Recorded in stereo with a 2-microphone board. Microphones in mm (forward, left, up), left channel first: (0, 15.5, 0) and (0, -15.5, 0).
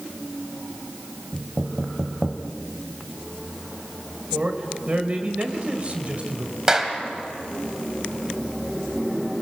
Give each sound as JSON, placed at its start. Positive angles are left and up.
{"t": 1.3, "sound": "knocking", "side_deg": -15, "distance_m": 1.5}
{"t": 4.3, "sound": "a man speaking", "side_deg": -40, "distance_m": 1.9}
{"t": 6.7, "sound": "a clap", "side_deg": -20, "distance_m": 2.0}